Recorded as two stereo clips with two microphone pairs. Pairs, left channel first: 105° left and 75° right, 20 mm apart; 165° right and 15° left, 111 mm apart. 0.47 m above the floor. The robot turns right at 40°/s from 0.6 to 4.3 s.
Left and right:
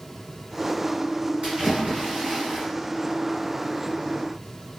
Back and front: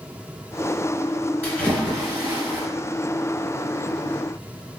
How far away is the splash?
About 1.4 m.